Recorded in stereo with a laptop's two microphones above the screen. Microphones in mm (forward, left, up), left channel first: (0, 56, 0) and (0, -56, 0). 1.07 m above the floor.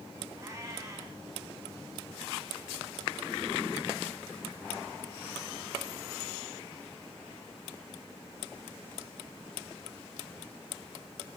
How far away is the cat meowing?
About 4 m.